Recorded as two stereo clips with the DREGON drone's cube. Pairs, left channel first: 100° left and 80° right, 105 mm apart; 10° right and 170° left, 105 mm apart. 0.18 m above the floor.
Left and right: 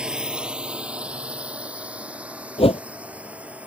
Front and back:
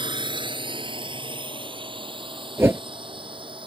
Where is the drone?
160° right; by 3.7 s 155° right.